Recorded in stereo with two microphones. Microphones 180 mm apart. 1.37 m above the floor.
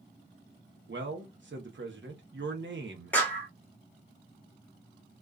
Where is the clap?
10° left (ahead or behind), 1.0 m.